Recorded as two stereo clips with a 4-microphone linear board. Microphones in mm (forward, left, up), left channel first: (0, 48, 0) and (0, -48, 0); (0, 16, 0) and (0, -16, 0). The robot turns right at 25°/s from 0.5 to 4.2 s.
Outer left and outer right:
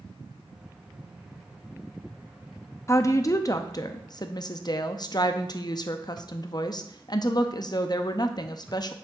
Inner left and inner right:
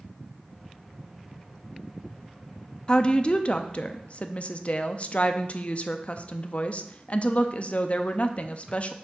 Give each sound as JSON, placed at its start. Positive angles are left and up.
{"t": 2.9, "sound": "a woman speaking", "azimuth_deg": 45, "distance_m": 0.5}